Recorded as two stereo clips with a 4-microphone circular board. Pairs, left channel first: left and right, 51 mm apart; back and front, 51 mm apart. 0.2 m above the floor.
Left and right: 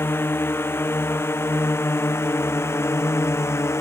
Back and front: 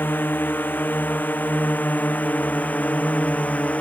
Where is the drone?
130° left; by 3.8 s 120° left.